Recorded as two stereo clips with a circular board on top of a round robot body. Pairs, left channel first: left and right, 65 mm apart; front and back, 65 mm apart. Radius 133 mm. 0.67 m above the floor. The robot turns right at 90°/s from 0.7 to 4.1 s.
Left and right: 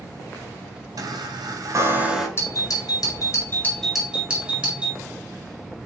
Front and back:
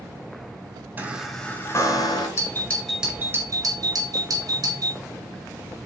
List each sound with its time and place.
1.0 s a chime: 120° right, 3 m; by 2.3 s straight ahead, 3 m
2.4 s a doorbell: 40° left, 5 m; by 5.0 s 165° right, 5 m